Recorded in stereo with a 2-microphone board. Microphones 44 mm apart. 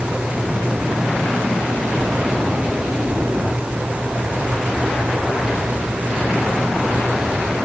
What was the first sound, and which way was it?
Only background noise.